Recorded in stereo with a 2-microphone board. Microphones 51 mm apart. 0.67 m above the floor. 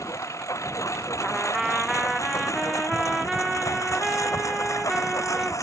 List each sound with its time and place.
0.0 s a lawn mower: 75° left (ahead or behind); by 5.6 s 85° left
1.2 s a trumpet: 5° right (ahead or behind)